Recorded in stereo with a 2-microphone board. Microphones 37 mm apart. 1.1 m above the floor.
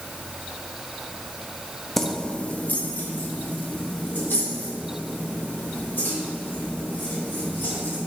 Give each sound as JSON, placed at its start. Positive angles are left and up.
{"t": 2.0, "sound": "keys jangling", "side_deg": 5, "distance_m": 0.5}